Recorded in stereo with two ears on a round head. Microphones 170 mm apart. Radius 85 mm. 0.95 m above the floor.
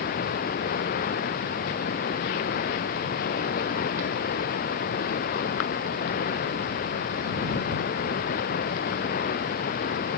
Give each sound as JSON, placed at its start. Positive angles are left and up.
{"t": 0.0, "sound": "running water", "side_deg": 50}